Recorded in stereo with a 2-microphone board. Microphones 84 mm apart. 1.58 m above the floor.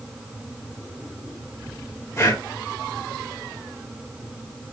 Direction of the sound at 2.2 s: 35° left (ahead or behind).